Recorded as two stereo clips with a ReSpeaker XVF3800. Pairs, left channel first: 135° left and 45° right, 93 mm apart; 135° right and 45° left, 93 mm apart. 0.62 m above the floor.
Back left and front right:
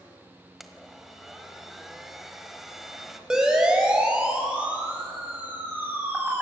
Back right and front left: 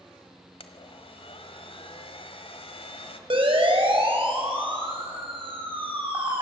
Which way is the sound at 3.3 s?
35° left.